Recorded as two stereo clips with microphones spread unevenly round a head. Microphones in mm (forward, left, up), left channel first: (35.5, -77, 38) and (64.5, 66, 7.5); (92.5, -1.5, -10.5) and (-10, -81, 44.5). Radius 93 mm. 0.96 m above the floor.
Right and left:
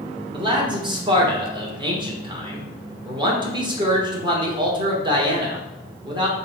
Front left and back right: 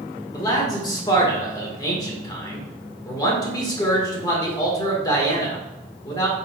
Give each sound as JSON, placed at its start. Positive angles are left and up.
{"t": 0.3, "sound": "a man speaking", "azimuth_deg": 50, "distance_m": 1.1}